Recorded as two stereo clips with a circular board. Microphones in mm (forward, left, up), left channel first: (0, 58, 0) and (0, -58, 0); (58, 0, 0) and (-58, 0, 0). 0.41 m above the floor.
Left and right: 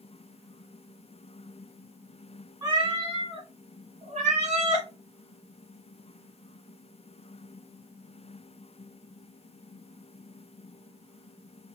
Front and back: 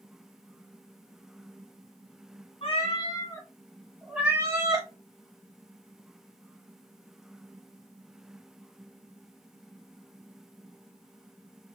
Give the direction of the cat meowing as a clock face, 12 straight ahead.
1 o'clock.